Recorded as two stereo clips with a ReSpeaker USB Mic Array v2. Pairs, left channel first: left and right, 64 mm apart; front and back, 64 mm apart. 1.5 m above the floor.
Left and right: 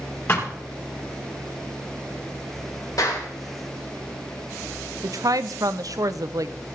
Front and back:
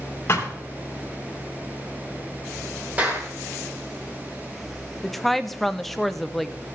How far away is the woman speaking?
About 0.5 m.